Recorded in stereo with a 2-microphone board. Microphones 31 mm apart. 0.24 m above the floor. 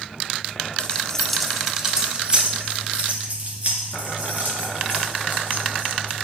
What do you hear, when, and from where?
0.8 s keys jangling: 30° left (ahead or behind), 1.1 m; by 6.1 s 55° right (ahead or behind), 4.5 m